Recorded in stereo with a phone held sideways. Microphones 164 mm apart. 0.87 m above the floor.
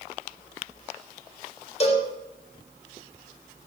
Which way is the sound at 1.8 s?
40° left (ahead or behind).